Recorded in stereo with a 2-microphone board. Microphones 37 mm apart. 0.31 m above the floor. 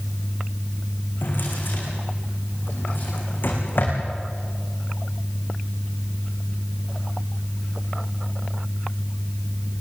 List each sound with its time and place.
1.2 s a drawer: 60° left (ahead or behind), 6.5 m